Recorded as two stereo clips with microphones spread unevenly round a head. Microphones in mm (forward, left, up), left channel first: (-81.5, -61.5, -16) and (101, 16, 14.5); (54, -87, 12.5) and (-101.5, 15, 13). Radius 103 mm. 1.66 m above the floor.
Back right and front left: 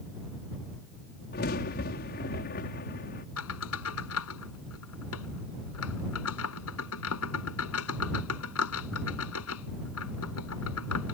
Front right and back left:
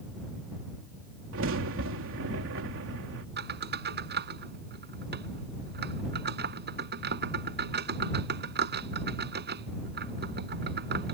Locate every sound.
1.3 s a crack: 155° left
3.4 s a squeak: 175° left